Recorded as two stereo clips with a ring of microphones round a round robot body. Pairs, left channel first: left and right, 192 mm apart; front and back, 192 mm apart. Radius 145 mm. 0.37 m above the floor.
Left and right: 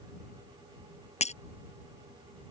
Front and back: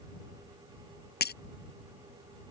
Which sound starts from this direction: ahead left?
Breaking glass, at 1.2 s.